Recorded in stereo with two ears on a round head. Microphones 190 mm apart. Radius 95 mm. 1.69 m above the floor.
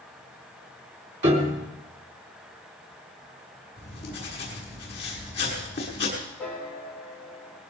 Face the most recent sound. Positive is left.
turn(degrees=5)  # may be behind; listen again after turning